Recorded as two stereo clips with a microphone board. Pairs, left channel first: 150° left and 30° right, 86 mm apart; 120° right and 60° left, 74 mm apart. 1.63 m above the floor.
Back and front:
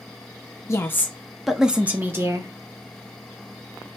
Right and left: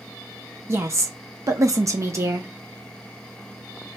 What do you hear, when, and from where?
0.7 s a woman speaking: 105° left, 0.7 m; by 2.5 s 15° left, 0.9 m